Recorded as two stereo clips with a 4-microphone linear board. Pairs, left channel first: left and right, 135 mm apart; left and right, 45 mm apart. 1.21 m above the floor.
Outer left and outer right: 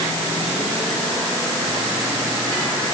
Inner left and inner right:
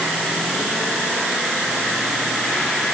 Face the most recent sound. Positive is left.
No sound to turn to.